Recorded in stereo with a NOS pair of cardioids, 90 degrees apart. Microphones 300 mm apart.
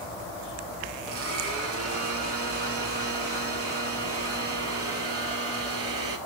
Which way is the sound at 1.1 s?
50° right.